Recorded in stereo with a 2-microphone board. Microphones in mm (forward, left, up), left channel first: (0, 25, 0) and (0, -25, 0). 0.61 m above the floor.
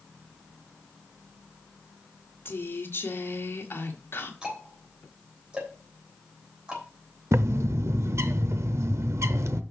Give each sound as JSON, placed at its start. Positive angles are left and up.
{"t": 2.5, "sound": "a woman speaking", "side_deg": 50, "distance_m": 1.6}
{"t": 4.4, "sound": "ticking", "side_deg": -20, "distance_m": 3.5}
{"t": 7.3, "sound": "a bird", "side_deg": -70, "distance_m": 0.6}